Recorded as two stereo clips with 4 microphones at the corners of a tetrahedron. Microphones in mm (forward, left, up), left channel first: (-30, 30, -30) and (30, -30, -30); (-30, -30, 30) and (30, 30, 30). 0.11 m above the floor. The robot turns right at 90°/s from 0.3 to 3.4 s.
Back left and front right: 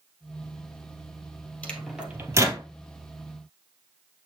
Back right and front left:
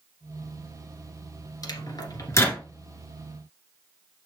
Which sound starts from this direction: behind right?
A microwave, at 1.6 s.